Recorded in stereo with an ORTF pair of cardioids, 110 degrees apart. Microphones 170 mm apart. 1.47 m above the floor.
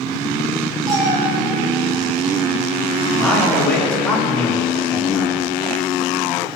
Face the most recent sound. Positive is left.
turn(degrees=10)